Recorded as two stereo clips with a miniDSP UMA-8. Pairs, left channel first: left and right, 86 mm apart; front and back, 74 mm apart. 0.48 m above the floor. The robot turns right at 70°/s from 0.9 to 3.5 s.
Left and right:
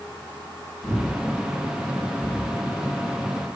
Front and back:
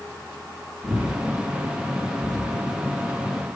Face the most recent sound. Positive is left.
turn(degrees=-65)